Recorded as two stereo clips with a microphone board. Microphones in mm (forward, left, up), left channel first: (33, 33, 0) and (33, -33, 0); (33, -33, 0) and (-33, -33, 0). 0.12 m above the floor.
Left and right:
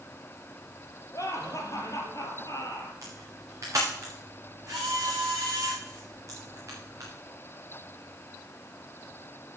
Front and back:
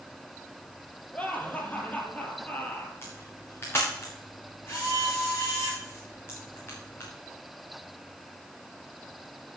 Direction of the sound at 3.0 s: 50° right.